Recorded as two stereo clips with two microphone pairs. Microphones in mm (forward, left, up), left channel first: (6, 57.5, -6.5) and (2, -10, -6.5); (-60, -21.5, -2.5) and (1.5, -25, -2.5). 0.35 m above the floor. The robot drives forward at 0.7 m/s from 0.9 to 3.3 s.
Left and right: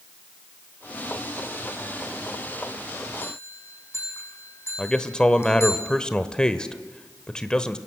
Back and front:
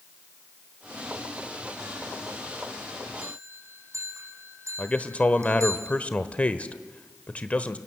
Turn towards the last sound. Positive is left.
turn(degrees=145)